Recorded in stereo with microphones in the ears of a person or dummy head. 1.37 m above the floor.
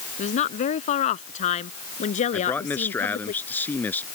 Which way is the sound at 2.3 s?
10° left (ahead or behind).